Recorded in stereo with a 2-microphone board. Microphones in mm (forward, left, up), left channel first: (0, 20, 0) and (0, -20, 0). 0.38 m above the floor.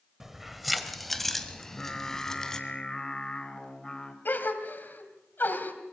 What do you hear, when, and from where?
0.2 s keys jangling: 10° right (ahead or behind), 1.2 m; by 2.6 s 15° left (ahead or behind), 2.5 m
1.6 s singing: 20° left (ahead or behind), 2.0 m
4.2 s a gasp: 55° left (ahead or behind), 2.5 m